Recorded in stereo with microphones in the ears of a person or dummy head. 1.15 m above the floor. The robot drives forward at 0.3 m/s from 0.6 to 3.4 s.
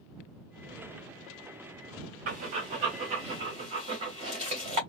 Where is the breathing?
50° right (ahead or behind), 1.0 m; by 4.8 s 40° right (ahead or behind), 1.2 m.